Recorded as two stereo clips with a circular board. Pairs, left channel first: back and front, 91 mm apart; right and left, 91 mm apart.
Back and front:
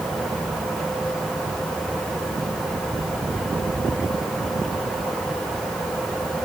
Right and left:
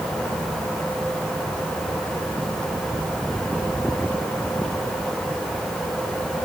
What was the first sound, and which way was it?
Only background noise.